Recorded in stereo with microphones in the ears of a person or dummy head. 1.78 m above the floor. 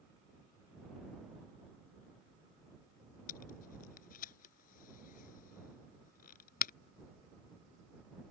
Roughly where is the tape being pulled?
Left.